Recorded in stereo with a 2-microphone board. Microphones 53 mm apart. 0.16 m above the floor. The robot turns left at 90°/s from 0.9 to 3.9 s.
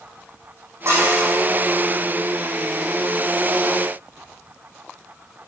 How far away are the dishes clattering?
About 4.5 m.